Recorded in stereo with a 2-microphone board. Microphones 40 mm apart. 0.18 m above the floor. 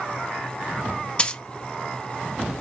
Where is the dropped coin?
25° left (ahead or behind), 0.6 m.